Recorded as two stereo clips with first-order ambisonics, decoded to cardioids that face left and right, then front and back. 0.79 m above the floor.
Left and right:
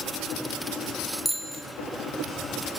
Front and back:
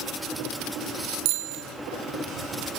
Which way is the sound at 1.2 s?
175° right.